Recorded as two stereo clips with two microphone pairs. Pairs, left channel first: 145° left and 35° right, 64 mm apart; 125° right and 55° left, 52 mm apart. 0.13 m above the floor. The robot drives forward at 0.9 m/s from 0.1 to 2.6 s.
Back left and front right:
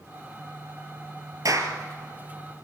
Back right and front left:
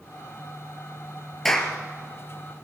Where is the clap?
40° right, 2.5 m; by 1.7 s 45° right, 2.5 m.